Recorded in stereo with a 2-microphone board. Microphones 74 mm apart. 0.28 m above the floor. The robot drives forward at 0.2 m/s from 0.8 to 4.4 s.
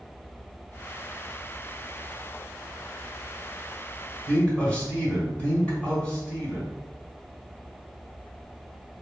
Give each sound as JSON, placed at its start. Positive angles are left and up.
{"t": 4.3, "sound": "a man speaking", "side_deg": 15, "distance_m": 1.5}